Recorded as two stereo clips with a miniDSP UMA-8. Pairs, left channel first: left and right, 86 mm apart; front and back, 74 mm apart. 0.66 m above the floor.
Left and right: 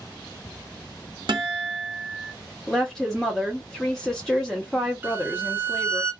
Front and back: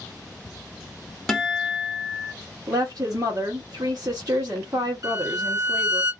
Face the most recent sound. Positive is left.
turn(degrees=-160)